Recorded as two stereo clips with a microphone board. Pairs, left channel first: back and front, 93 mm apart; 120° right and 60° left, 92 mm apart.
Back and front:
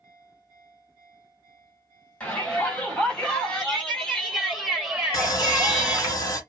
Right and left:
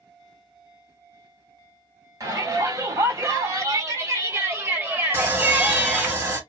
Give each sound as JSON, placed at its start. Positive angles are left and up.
{"t": 2.2, "sound": "a shout", "azimuth_deg": 105, "distance_m": 2.5}
{"t": 5.1, "sound": "sawing", "azimuth_deg": 125, "distance_m": 1.6}